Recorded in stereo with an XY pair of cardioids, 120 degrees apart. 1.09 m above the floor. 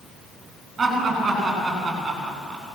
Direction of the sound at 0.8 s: 25° right.